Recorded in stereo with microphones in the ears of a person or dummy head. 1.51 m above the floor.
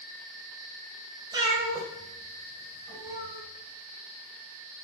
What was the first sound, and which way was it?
A cat meowing, 25° right (ahead or behind).